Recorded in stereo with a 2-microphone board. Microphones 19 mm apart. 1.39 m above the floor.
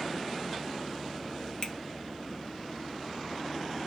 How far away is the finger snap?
About 1.8 m.